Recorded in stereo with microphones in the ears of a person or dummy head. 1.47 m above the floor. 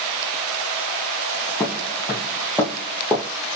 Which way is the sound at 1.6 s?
15° left (ahead or behind).